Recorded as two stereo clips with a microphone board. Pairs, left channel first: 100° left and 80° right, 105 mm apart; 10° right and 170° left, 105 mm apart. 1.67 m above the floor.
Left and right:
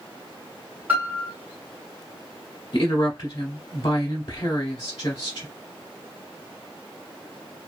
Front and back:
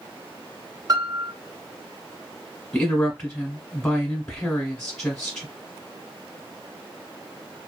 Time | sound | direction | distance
0.9 | a piano | 150° right | 0.7 m
2.7 | a woman speaking | 60° left | 1.0 m